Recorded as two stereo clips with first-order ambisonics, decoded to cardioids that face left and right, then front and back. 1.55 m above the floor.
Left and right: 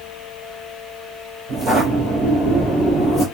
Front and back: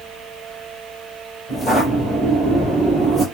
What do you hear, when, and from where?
1.5 s footsteps: 70° right, 1.6 m; by 3.2 s straight behind, 1.6 m